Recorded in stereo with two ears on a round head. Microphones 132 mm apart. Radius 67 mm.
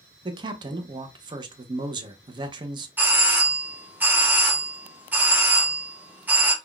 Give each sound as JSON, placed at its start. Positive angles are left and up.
{"t": 0.2, "sound": "a man speaking", "side_deg": -30, "distance_m": 0.5}
{"t": 3.0, "sound": "a doorbell", "side_deg": -15, "distance_m": 0.7}